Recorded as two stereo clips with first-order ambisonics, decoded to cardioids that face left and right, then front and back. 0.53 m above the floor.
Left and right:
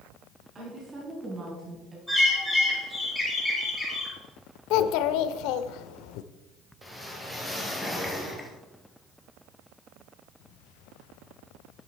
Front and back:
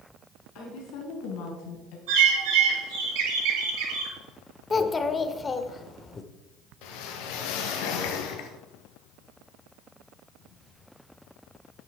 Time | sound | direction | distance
0.6 | a woman speaking | 25° right | 5 m
2.1 | a bird | straight behind | 6 m
4.7 | a child speaking | 75° left | 0.8 m
6.8 | a whoosh | straight ahead | 1.8 m